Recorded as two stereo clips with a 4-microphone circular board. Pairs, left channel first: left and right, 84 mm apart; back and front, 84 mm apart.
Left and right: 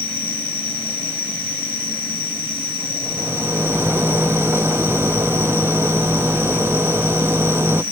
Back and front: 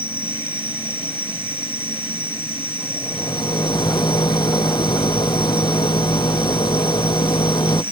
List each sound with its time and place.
0.0 s an insect: 75° right
3.0 s a rattle: 150° right